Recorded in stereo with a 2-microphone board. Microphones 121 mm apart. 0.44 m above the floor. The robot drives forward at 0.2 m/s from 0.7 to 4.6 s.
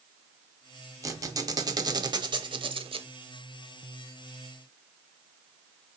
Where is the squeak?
30° right (ahead or behind), 0.8 m; by 3.1 s 55° right (ahead or behind), 0.5 m.